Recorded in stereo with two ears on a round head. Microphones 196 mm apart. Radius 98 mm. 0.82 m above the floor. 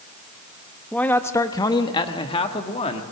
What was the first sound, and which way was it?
A man speaking, 5° left (ahead or behind).